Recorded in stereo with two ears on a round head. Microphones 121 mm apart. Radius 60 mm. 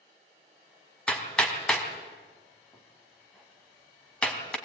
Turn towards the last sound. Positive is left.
turn(degrees=10)  # may be behind; listen again after turning